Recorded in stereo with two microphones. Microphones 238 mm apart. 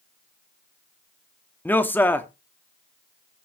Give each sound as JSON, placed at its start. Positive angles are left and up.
{"t": 1.6, "sound": "a man speaking", "side_deg": 10, "distance_m": 0.9}